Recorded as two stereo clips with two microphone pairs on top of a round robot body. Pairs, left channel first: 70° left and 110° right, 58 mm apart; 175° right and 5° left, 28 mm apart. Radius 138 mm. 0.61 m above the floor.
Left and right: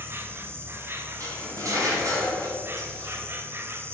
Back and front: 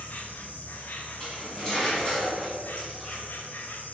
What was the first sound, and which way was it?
An insect, 150° right.